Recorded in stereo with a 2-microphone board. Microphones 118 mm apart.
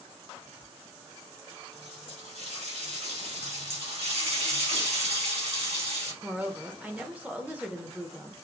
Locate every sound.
0.3 s whispering: 55° right (ahead or behind), 2 m
1.7 s a running tap: 70° right (ahead or behind), 2.5 m
3.4 s a running tap: 75° right (ahead or behind), 2.5 m
6.2 s a woman speaking: 15° right (ahead or behind), 0.8 m